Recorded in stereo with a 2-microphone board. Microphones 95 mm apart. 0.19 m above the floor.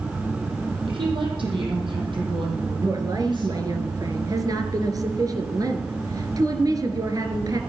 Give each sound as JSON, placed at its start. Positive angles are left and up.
{"t": 0.9, "sound": "a woman speaking", "side_deg": -65, "distance_m": 9.0}
{"t": 2.8, "sound": "a woman speaking", "side_deg": -40, "distance_m": 2.5}